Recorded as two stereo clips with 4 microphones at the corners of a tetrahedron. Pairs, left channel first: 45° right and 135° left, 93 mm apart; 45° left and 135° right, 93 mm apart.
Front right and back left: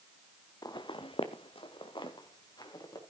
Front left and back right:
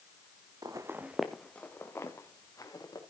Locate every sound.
0.6 s footsteps: 90° right, 1.1 m; by 3.0 s 5° right, 3 m